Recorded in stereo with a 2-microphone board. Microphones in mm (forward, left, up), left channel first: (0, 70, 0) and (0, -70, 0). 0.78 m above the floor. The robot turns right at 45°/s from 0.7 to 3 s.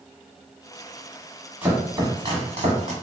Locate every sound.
1.6 s chopping: 15° right (ahead or behind), 1.3 m; by 2.9 s 65° right (ahead or behind), 1.3 m